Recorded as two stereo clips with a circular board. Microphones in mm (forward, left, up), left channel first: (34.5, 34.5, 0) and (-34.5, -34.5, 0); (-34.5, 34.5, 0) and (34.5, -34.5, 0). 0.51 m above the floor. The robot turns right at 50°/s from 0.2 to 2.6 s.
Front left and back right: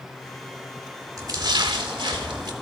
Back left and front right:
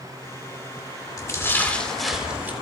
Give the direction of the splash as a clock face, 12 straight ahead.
6 o'clock.